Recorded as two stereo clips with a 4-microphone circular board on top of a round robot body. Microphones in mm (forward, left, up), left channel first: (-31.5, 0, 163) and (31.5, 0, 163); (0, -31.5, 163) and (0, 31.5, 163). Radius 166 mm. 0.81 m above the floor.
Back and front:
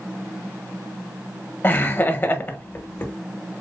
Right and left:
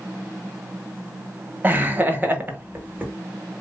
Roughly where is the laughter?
Behind left.